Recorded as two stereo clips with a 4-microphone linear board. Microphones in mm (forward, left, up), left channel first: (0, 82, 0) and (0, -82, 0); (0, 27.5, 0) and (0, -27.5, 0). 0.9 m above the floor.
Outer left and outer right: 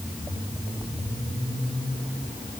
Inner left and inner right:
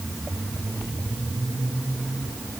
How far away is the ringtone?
I don't hear a ringtone.